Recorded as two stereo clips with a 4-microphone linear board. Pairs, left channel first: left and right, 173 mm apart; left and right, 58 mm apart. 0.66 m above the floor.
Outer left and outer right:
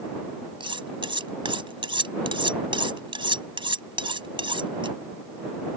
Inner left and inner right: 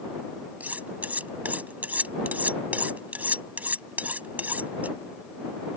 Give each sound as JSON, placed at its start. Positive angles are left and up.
{"t": 0.6, "sound": "cutlery clinking", "side_deg": -30}